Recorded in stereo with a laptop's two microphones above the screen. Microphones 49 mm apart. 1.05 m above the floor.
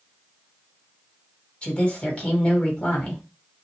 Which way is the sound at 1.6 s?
25° left (ahead or behind).